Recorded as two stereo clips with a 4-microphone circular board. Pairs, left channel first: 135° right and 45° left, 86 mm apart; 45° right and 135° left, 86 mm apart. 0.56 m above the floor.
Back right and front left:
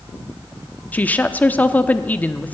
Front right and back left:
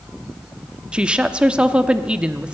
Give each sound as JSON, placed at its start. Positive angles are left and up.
{"t": 0.9, "sound": "a woman speaking", "azimuth_deg": -165, "distance_m": 0.8}